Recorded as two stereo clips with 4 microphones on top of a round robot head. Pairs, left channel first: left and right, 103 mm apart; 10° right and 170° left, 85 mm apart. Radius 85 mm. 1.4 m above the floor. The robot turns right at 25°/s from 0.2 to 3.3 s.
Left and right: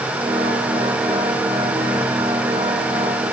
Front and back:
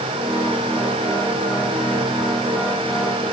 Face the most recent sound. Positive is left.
No sound to turn to.